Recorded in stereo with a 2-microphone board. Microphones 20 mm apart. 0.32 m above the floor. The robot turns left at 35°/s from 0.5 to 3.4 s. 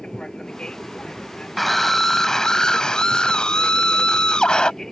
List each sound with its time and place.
0.0 s an aircraft: 125° left; by 4.9 s 25° left
1.6 s a scream: 170° left; by 4.7 s 105° left